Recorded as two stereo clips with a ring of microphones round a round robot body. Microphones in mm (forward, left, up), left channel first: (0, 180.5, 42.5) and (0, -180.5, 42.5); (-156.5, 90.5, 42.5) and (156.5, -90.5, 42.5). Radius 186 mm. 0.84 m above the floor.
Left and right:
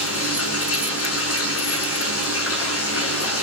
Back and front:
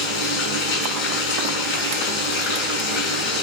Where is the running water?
145° left, 6.5 m.